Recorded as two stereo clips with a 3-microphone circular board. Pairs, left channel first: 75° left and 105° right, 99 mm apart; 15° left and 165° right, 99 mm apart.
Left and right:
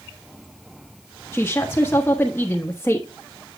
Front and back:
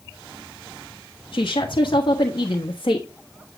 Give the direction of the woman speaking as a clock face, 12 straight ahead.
12 o'clock.